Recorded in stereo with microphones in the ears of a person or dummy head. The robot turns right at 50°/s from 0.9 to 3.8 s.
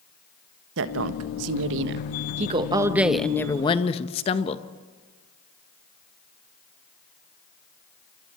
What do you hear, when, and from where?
0.8 s a woman speaking: 110° right, 1.3 m; by 4.7 s 35° left, 1.3 m